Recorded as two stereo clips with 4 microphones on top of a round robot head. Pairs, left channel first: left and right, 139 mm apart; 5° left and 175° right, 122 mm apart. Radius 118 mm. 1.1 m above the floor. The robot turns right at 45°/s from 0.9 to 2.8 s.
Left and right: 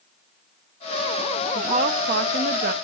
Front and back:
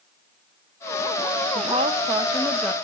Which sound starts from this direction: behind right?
A woman speaking, at 1.6 s.